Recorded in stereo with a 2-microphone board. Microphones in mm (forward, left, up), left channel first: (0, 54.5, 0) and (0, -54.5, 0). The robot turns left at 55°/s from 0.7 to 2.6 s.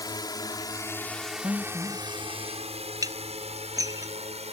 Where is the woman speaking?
145° right; by 2.0 s straight behind.